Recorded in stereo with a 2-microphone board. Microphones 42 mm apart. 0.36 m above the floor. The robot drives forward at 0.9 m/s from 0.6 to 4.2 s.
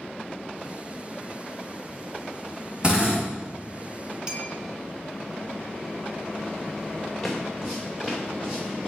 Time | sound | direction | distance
2.8 | a drill | 25° right (ahead or behind) | 2.5 m
4.3 | a clink | 25° right (ahead or behind) | 0.9 m
7.2 | footsteps | 5° left (ahead or behind) | 1.5 m